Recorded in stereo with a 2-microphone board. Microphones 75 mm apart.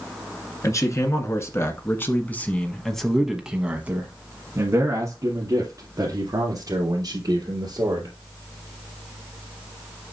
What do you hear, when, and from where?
0.6 s a man speaking: 45° left (ahead or behind), 1.9 m; by 8.1 s 65° right (ahead or behind), 3 m